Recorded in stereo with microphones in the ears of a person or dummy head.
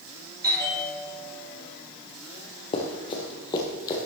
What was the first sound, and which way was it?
A bell, 20° right (ahead or behind).